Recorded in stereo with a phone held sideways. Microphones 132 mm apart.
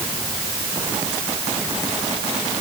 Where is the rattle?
I don't hear a rattle.